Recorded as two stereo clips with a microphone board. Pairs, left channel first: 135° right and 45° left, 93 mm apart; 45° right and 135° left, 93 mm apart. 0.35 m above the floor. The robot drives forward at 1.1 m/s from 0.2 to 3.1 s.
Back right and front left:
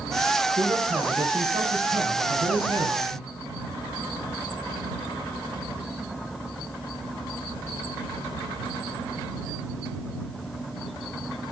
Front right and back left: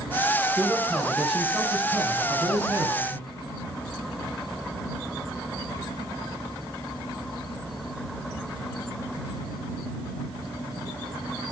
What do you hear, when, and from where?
0.6 s a man speaking: 40° left, 4.5 m; by 3.2 s 80° left, 3 m